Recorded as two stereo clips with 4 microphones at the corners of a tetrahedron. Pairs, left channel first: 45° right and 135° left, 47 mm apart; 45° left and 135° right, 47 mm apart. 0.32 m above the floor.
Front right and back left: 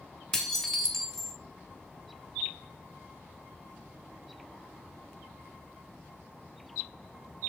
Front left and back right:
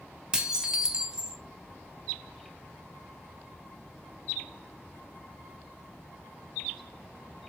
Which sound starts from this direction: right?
Dishes clattering, at 0.3 s.